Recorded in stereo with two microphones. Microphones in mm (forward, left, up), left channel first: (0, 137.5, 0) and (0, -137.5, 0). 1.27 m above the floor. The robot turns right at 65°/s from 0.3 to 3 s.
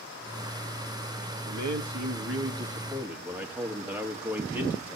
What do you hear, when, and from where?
1.5 s a man speaking: 105° right, 2 m; by 5.0 s 5° right, 2 m